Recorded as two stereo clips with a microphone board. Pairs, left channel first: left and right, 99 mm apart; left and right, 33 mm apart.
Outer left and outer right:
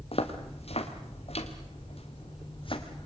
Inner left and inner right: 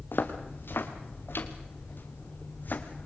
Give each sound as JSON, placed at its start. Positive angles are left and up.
{"t": 0.1, "sound": "footsteps", "side_deg": 75, "distance_m": 3.0}